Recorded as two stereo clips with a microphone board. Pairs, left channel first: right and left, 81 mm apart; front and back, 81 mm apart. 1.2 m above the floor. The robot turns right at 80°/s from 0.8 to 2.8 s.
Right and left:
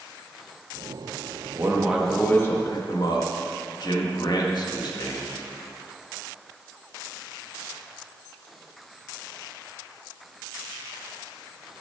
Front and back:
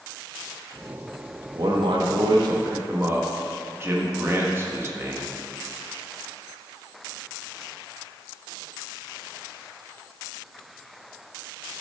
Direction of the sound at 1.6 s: 140° left.